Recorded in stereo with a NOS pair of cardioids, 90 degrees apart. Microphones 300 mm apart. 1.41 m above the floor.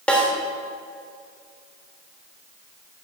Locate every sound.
0.1 s a snare drum: 5° left, 3.5 m